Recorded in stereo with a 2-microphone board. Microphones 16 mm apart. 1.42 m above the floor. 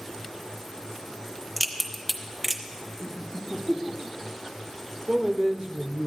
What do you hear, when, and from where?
1.6 s a crack: 5° right (ahead or behind), 0.9 m
3.0 s laughter: 85° left, 1.9 m
5.1 s a man speaking: 20° right (ahead or behind), 0.7 m